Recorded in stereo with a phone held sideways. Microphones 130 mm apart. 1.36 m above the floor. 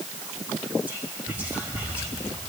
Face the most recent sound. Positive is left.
turn(degrees=-15)  # may be behind; listen again after turning